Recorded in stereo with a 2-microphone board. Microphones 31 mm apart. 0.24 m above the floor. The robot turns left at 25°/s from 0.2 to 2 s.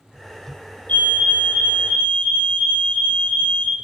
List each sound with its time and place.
0.9 s a fire alarm: 60° left (ahead or behind), 4.5 m; by 3.8 s 40° left (ahead or behind), 4.5 m